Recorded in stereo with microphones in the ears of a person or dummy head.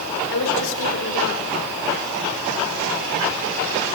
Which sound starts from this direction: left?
A woman speaking, at 0.3 s.